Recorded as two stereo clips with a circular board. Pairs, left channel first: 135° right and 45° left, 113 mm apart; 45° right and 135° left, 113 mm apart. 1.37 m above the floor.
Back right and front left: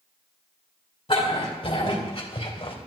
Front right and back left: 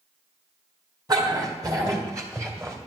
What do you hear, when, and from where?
1.1 s a dog barking: 170° right, 3 m; by 2.8 s 165° right, 2 m